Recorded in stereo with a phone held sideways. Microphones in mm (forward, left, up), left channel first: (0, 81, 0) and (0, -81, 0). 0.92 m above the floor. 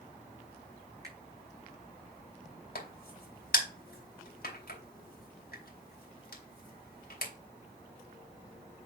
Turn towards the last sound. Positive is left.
turn(degrees=75)  # may be behind; listen again after turning